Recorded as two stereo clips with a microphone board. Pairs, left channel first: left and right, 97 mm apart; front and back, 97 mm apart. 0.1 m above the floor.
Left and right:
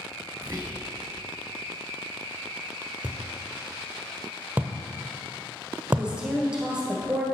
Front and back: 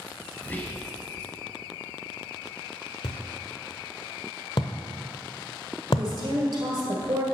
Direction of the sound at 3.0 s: 20° right.